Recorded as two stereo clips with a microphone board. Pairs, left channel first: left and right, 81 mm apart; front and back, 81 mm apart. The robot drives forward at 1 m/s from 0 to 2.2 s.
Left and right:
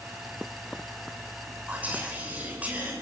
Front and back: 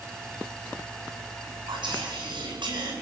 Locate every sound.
1.7 s whispering: 160° right, 8 m